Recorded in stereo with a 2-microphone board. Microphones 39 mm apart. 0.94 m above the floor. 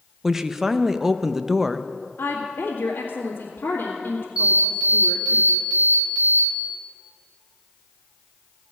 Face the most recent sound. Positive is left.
turn(degrees=-30)  # may be behind; listen again after turning